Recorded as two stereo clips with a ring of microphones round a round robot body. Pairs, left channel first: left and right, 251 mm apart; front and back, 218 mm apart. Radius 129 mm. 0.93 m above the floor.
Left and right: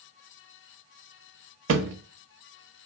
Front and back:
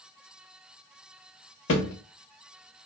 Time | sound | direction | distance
1.7 | a thud | 50° right | 0.7 m